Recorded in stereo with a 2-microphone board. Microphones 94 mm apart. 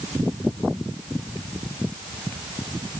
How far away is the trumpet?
No trumpet in this recording.